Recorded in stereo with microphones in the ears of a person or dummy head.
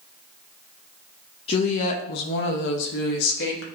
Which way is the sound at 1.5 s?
30° left (ahead or behind).